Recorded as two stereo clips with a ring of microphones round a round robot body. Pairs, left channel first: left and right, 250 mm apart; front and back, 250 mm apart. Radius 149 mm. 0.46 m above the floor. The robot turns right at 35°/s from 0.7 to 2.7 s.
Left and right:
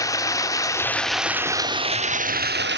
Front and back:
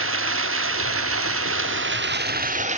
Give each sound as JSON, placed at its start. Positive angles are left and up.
{"t": 0.0, "sound": "running water", "azimuth_deg": 165, "distance_m": 0.7}